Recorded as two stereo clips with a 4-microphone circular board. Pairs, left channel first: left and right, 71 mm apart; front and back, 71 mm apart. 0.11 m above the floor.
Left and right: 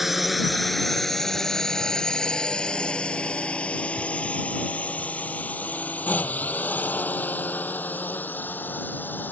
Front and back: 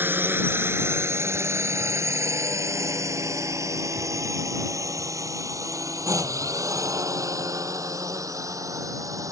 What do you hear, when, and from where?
0.0 s a drone: 175° right; by 9.3 s 150° left